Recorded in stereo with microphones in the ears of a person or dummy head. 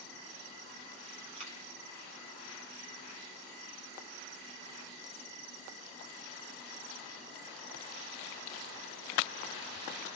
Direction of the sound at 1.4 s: 35° right (ahead or behind).